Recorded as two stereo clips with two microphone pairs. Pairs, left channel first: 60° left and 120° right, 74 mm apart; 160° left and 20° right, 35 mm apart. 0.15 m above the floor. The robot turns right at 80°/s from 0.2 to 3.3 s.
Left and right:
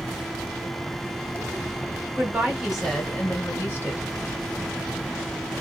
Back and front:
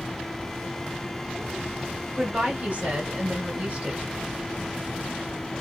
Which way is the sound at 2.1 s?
85° right.